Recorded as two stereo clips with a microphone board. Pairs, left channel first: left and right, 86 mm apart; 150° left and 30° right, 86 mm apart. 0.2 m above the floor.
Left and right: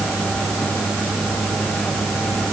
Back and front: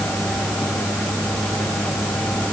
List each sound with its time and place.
Only background noise.